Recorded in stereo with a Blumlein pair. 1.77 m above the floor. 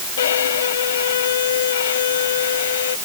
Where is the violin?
60° left.